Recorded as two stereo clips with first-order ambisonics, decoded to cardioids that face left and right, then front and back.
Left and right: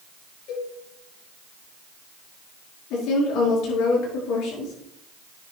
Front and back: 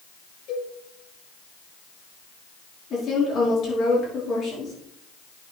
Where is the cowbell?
45° left, 7 m.